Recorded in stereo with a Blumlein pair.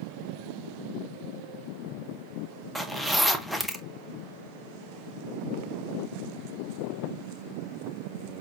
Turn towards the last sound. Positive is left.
turn(degrees=0)